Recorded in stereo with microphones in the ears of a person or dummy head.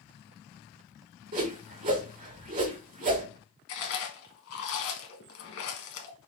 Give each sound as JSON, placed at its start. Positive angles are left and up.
{"t": 1.3, "sound": "a whoosh", "side_deg": -40, "distance_m": 1.7}
{"t": 3.7, "sound": "chewing", "side_deg": 65, "distance_m": 1.1}